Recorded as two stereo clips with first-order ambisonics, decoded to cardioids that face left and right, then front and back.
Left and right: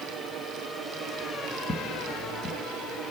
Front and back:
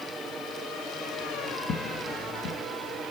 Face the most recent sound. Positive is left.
turn(degrees=30)